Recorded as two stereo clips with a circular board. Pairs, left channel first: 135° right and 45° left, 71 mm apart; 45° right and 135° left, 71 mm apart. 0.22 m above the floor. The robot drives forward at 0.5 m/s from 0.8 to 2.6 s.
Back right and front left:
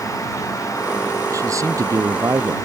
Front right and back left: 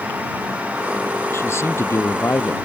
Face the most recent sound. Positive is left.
turn(degrees=5)